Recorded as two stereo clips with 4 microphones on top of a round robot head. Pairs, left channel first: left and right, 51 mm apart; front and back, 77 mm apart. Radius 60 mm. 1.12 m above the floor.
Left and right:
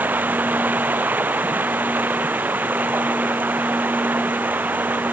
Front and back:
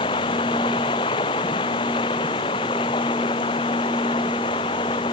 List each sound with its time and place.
0.0 s running water: 35° right